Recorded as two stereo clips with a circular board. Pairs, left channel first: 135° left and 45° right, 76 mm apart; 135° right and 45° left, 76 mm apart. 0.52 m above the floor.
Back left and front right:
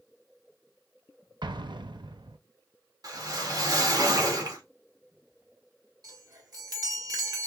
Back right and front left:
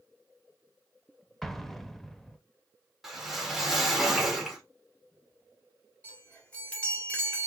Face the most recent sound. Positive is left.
turn(degrees=-65)